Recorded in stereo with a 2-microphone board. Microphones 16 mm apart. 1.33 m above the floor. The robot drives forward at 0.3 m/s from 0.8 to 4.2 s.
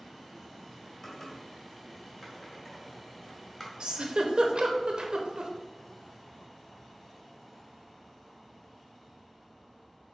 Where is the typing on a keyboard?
15° left (ahead or behind), 1.7 m; by 3.7 s 20° left (ahead or behind), 1.2 m.